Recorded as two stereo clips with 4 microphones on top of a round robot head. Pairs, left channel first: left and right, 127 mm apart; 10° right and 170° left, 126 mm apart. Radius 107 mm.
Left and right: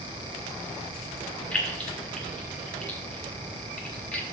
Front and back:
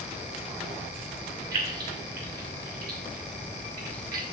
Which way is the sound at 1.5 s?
170° left.